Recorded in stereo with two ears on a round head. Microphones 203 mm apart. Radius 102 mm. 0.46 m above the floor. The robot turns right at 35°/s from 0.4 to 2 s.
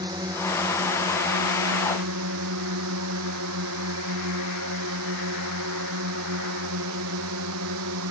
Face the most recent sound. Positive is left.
turn(degrees=-105)